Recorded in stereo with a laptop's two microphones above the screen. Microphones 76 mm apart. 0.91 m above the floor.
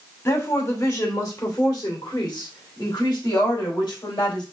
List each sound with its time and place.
0.2 s a woman speaking: 40° left (ahead or behind), 2 m; by 4.4 s 75° left (ahead or behind), 3.5 m